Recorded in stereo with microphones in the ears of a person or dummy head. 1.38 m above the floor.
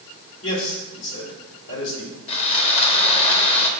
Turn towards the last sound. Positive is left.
turn(degrees=30)  # may be behind; listen again after turning